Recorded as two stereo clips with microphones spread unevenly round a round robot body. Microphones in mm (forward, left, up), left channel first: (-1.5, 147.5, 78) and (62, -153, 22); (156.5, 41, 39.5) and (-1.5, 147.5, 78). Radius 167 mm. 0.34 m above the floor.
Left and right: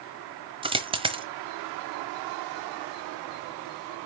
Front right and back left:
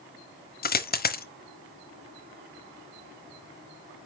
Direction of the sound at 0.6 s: 10° right.